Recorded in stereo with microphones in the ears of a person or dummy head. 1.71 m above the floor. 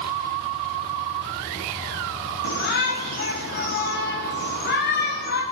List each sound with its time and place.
2.4 s a shout: 50° left (ahead or behind), 1.6 m